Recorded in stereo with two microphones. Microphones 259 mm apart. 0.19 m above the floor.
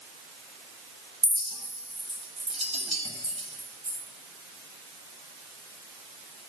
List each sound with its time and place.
1.2 s a clink: 25° right (ahead or behind), 1.0 m